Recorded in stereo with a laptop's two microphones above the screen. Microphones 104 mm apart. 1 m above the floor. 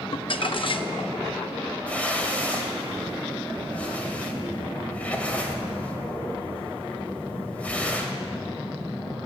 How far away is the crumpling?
About 0.6 m.